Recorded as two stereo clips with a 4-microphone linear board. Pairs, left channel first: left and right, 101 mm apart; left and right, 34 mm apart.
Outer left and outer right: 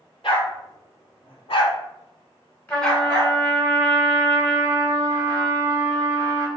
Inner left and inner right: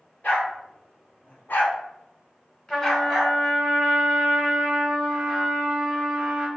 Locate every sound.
0.2 s a dog barking: 55° left (ahead or behind), 1.7 m; by 3.4 s 5° right (ahead or behind), 1.4 m
2.7 s a trumpet: 15° left (ahead or behind), 1.6 m